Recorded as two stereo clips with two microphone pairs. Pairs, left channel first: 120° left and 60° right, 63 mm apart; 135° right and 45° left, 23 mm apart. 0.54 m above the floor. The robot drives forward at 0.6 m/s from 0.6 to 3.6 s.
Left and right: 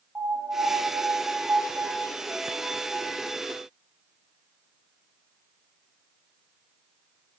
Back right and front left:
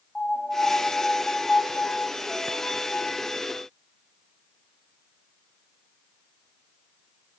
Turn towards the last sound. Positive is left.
turn(degrees=-145)